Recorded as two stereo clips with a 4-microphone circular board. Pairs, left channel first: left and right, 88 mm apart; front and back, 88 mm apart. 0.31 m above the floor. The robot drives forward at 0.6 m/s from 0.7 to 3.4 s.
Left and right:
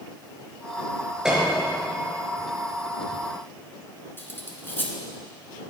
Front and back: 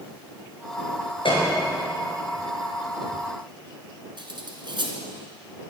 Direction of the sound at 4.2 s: 155° left.